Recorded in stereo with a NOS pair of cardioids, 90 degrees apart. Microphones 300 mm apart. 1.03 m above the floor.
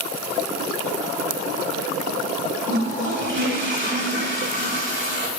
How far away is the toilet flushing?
About 5 m.